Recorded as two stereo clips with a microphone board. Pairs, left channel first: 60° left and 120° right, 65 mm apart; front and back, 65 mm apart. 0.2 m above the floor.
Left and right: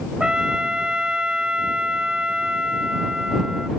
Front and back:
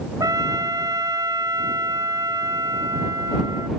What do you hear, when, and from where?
0.2 s a trumpet: 165° left